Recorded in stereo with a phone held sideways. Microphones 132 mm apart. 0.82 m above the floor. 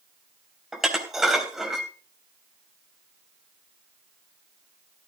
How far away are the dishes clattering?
About 3.5 m.